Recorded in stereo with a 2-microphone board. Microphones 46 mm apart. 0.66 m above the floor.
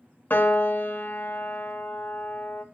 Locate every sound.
0.3 s a piano: 45° left (ahead or behind), 0.6 m